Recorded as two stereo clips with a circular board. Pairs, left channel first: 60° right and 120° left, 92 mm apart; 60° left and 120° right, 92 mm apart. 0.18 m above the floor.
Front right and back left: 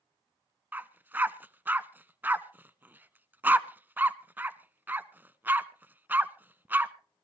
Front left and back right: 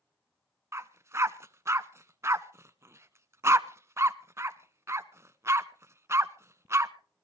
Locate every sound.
0.7 s a dog barking: 175° right, 0.6 m